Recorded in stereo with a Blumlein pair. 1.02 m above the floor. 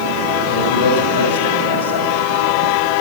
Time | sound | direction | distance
0.5 | a man speaking | 70° left | 4.5 m